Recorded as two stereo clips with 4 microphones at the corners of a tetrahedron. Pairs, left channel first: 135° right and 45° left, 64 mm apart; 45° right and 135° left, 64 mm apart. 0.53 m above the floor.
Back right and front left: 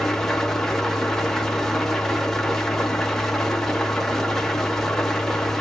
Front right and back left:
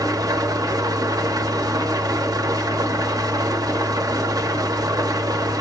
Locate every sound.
0.0 s an engine running: 140° left, 0.8 m